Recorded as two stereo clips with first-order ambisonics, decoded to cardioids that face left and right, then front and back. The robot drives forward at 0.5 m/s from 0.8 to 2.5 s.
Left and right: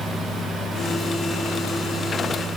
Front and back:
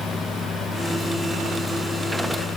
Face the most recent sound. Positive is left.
No sound to turn to.